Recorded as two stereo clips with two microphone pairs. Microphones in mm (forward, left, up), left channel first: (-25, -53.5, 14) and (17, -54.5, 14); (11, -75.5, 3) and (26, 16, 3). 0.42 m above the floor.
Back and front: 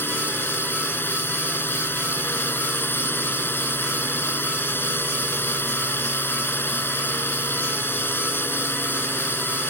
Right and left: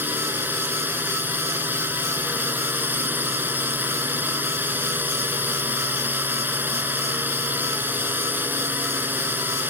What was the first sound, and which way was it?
A drone, 150° left.